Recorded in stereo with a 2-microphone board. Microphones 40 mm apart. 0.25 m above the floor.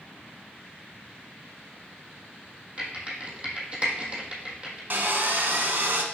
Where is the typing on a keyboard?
30° right (ahead or behind), 1.5 m.